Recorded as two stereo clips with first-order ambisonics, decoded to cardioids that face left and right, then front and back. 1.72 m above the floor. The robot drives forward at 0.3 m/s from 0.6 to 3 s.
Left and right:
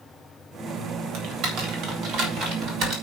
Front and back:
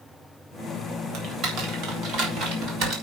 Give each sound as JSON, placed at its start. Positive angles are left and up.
{"t": 1.1, "sound": "typing on a keyboard", "azimuth_deg": -135, "distance_m": 3.5}